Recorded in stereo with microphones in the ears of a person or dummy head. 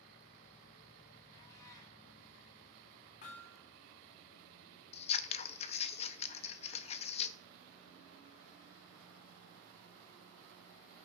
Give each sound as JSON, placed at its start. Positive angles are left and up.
{"t": 1.3, "sound": "a cat meowing", "side_deg": 25, "distance_m": 2.0}
{"t": 3.2, "sound": "hammering", "side_deg": 50, "distance_m": 3.0}
{"t": 4.9, "sound": "scissors", "side_deg": 40, "distance_m": 0.5}